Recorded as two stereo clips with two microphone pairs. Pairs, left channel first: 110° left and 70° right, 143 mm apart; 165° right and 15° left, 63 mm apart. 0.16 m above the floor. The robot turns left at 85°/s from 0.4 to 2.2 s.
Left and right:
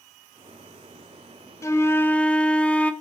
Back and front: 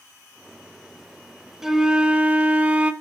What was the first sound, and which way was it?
A flute, 95° left.